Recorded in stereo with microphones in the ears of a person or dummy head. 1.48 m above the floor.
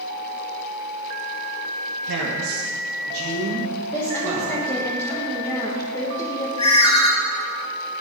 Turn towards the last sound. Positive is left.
turn(degrees=35)  # may be behind; listen again after turning